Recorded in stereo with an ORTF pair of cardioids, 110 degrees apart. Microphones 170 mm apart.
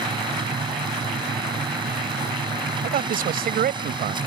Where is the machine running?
25° right.